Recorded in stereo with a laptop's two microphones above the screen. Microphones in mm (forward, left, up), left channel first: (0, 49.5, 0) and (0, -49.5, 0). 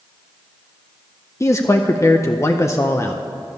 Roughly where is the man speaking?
Left.